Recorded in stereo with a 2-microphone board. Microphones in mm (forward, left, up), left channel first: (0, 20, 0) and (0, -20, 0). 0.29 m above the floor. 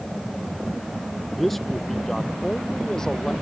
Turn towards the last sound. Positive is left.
turn(degrees=20)  # may be behind; listen again after turning